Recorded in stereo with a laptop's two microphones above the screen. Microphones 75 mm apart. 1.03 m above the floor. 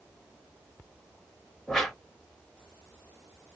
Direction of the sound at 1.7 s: 5° left (ahead or behind).